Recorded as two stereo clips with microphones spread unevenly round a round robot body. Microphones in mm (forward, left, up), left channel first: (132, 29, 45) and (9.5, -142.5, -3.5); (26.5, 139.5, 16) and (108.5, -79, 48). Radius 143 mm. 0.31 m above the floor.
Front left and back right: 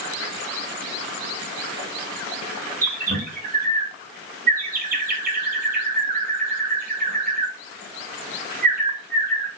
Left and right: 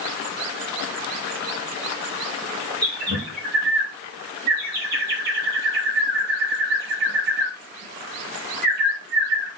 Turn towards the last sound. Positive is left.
turn(degrees=-115)